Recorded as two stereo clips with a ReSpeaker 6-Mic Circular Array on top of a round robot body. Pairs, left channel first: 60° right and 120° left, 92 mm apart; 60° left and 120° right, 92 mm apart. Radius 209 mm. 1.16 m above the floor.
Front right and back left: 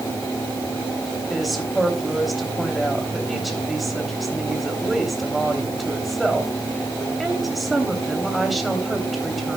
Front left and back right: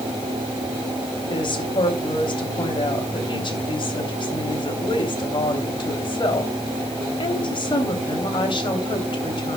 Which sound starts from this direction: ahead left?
A woman speaking, at 1.3 s.